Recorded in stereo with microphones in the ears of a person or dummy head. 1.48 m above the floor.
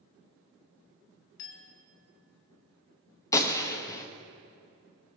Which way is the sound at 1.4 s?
60° left (ahead or behind).